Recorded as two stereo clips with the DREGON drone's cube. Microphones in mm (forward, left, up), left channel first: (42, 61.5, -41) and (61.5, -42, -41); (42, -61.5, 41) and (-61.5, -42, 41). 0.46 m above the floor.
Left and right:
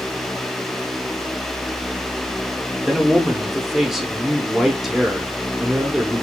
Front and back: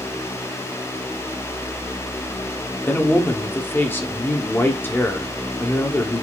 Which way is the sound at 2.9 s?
Straight ahead.